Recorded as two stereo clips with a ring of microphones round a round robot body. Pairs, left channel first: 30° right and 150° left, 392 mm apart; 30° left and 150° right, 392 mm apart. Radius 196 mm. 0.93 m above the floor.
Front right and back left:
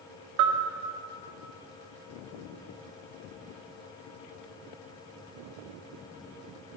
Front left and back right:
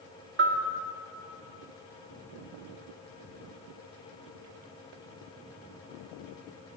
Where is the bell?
150° left, 2.5 m.